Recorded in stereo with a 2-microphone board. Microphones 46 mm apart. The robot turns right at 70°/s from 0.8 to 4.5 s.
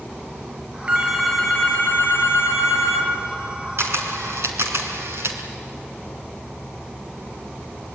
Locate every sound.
0.9 s a phone ringing: 30° right, 4.5 m; by 3.1 s 125° left, 4.5 m
3.8 s a camera shutter: 55° right (ahead or behind), 3 m; by 5.4 s 65° right (ahead or behind), 3 m